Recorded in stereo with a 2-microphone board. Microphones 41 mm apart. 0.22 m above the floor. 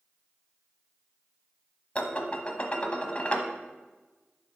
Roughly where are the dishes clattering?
Left.